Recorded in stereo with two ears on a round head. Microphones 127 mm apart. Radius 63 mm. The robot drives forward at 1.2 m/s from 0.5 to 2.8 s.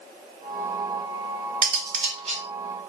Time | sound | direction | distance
1.6 | cutlery clinking | 60° right (ahead or behind) | 1.6 m